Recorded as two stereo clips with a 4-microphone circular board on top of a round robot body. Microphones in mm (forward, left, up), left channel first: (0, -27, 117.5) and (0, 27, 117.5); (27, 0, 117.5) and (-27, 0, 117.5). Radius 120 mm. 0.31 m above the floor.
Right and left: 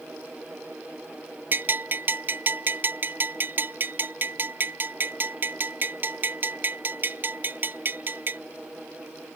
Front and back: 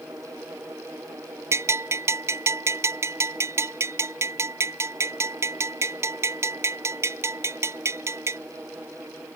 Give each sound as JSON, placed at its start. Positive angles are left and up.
{"t": 1.5, "sound": "a bell", "azimuth_deg": 140}